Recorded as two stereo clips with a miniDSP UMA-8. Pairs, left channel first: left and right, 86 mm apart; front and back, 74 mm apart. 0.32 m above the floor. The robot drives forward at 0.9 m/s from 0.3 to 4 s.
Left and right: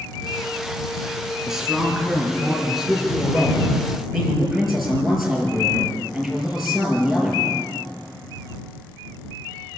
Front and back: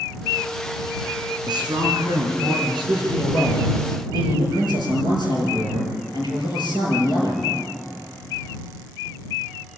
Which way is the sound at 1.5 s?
175° right.